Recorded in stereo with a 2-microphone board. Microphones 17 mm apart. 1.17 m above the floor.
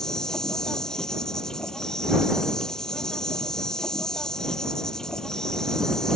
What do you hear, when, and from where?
0.0 s an insect: 30° left (ahead or behind)